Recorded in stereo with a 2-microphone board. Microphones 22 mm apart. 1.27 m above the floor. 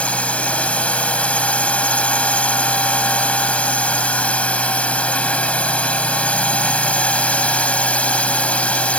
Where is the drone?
80° left.